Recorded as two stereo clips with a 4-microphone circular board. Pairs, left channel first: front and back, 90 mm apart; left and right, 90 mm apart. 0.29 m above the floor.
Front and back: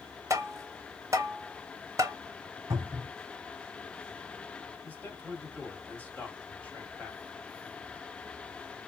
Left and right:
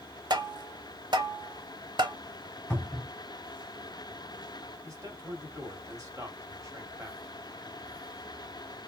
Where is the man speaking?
60° right, 1.3 m.